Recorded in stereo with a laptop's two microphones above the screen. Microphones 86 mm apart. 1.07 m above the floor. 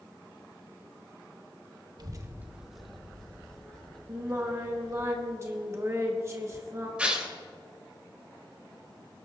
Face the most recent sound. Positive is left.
turn(degrees=-15)  # may be behind; listen again after turning